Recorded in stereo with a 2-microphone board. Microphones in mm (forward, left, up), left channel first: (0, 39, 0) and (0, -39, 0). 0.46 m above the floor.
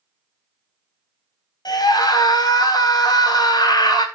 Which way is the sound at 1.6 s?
55° left (ahead or behind).